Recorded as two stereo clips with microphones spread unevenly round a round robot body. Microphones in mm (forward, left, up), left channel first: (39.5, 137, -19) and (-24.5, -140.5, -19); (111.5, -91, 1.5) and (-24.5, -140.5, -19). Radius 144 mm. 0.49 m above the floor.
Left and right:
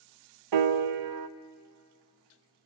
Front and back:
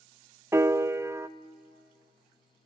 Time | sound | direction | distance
0.5 | a piano | 85° right | 0.6 m